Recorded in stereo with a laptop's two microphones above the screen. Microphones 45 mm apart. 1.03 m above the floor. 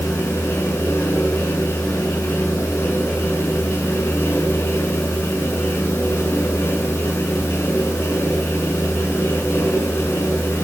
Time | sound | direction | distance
0.0 | a fan | 65° left (ahead or behind) | 6.5 m